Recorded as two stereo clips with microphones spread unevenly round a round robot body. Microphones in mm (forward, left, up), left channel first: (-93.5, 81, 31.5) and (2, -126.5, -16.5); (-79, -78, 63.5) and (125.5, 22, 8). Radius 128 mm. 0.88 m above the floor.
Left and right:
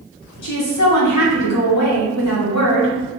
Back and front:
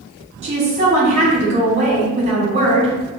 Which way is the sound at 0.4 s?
85° left.